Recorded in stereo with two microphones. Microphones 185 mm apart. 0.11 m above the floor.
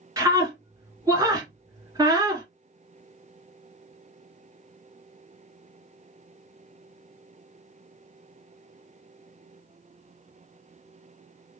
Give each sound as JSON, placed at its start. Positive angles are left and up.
{"t": 0.2, "sound": "a scream", "side_deg": -20, "distance_m": 1.6}